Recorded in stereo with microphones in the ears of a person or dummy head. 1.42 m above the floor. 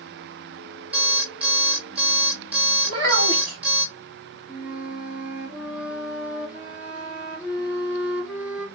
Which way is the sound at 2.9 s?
50° right (ahead or behind).